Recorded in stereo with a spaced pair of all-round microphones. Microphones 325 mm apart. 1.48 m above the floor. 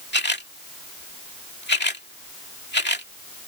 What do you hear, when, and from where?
0.1 s a camera shutter: 30° left (ahead or behind)